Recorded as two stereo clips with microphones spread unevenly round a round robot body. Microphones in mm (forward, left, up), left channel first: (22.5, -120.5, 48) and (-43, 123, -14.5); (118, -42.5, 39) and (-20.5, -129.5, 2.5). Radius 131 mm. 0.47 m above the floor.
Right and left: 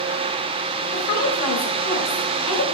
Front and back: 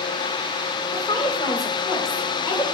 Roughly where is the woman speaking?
Ahead right.